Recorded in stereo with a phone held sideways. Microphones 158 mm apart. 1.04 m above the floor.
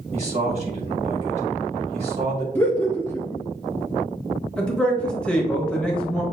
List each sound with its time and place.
0.1 s a man speaking: 45° right (ahead or behind), 1.6 m
2.5 s laughter: 10° left (ahead or behind), 0.6 m
4.6 s a man speaking: 5° left (ahead or behind), 1.2 m